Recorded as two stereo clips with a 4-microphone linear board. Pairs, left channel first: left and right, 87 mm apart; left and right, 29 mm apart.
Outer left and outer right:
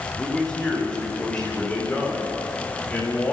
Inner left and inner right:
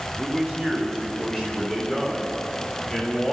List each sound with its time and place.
0.2 s a man speaking: 15° left (ahead or behind), 8.5 m; by 3.3 s 25° left (ahead or behind), 11.5 m